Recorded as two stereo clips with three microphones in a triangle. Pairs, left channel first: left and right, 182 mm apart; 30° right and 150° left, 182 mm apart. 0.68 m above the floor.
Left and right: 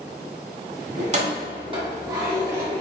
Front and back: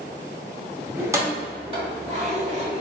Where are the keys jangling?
130° right, 1.0 m; by 2.8 s 165° right, 1.9 m.